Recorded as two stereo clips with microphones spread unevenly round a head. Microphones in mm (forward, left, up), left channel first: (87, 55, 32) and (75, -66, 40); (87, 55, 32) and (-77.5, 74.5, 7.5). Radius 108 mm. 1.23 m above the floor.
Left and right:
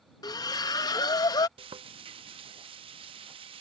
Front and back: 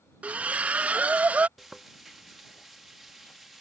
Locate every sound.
0.2 s a splash: 80° left
1.6 s frying: 90° right